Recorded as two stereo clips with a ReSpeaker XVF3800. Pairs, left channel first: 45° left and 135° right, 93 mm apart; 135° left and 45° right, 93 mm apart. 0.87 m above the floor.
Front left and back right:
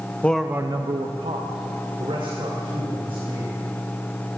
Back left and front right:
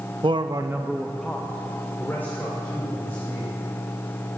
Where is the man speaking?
25° right, 0.7 m; by 3.5 s 160° right, 4.5 m.